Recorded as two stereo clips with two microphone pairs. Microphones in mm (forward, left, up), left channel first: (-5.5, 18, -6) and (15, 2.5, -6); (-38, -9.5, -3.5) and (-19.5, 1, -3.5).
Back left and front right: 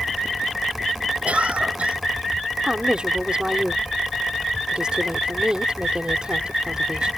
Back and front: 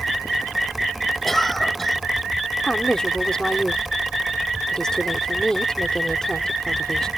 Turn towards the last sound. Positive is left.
turn(degrees=-85)